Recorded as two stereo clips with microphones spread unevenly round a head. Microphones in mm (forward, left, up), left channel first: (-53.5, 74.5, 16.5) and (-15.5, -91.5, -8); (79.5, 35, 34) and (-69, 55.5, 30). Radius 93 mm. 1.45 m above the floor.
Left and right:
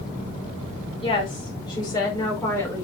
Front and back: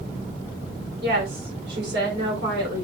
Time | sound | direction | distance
1.0 | a woman speaking | 160° left | 4.5 m